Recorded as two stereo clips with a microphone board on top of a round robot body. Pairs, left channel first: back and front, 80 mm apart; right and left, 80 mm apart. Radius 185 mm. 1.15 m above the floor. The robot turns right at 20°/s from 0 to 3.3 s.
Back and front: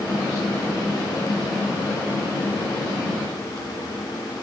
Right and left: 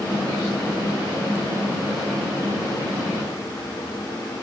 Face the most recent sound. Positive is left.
No sound to turn to.